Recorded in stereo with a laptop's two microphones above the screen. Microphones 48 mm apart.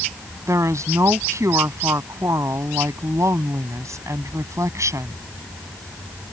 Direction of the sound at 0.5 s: 85° right.